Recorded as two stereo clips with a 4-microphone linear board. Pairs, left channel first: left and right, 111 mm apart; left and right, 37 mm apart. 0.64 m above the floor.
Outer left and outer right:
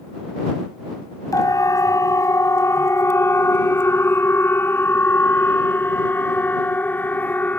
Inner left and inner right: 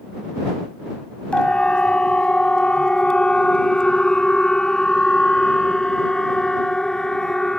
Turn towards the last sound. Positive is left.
turn(degrees=15)  # may be behind; listen again after turning